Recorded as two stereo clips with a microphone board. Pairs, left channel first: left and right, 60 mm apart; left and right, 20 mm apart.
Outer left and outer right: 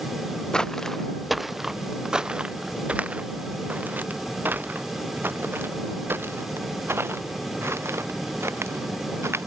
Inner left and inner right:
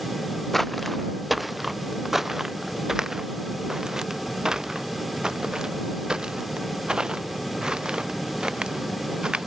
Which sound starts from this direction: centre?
Footsteps, at 0.5 s.